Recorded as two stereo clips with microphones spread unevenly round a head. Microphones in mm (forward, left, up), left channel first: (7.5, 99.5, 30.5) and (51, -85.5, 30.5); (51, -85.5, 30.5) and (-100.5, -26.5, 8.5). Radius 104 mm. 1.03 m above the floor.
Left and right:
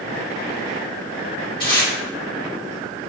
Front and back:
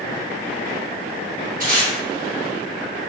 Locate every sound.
1.6 s tape being pulled: 165° left, 1.5 m